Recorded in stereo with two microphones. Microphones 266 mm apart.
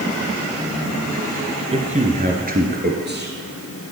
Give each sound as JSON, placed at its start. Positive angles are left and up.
{"t": 1.7, "sound": "a man speaking", "side_deg": -25, "distance_m": 2.0}